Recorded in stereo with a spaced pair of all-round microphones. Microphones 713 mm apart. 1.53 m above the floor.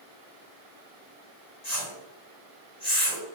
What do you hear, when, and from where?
1.6 s a whoosh: 65° left (ahead or behind), 1.1 m